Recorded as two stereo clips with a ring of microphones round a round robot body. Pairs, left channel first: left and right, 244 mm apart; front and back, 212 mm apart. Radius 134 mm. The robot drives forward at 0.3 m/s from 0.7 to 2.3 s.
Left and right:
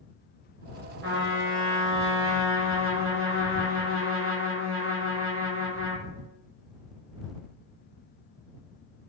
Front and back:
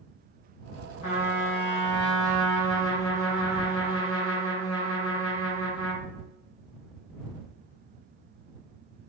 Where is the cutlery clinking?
I don't hear cutlery clinking.